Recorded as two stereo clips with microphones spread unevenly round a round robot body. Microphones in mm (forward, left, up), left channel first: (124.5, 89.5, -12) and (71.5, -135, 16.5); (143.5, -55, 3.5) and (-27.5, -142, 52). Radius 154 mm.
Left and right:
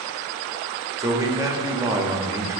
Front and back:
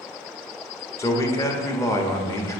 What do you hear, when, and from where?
1.0 s a man speaking: 25° right, 1.2 m